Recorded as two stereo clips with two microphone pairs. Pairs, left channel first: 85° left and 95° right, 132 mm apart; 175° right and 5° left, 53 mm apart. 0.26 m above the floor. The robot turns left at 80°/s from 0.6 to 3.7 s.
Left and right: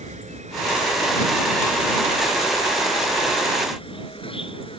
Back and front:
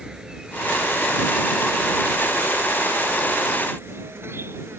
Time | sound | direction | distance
0.0 | an insect | 70° right | ?